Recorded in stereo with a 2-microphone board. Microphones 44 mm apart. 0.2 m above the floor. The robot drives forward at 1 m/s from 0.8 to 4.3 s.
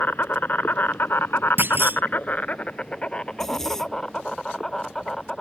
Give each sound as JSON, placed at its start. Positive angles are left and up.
{"t": 0.0, "sound": "an insect", "side_deg": 50}
{"t": 1.6, "sound": "a clunk", "side_deg": -55}
{"t": 3.3, "sound": "a zipper", "side_deg": 10}